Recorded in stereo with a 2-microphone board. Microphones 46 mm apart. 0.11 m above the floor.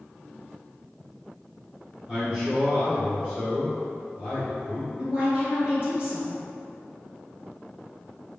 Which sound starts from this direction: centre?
A man speaking, at 2.1 s.